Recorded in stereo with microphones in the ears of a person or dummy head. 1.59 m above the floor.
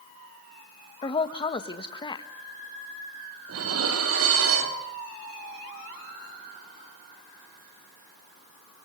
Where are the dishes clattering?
80° right, 2.5 m.